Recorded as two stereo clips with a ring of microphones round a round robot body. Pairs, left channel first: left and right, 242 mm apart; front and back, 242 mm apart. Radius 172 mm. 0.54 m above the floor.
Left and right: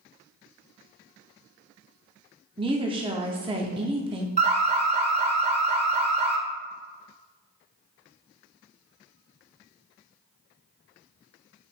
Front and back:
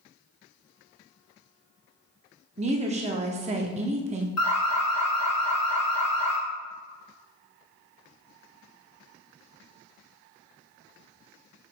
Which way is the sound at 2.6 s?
145° right.